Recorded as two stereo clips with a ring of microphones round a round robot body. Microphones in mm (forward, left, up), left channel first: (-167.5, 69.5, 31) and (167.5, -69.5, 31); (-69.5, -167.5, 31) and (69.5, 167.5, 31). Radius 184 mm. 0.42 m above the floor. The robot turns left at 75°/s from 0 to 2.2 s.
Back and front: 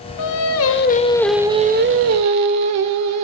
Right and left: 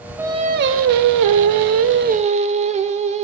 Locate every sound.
0.2 s singing: 150° left, 1.2 m; by 3.2 s straight ahead, 1.2 m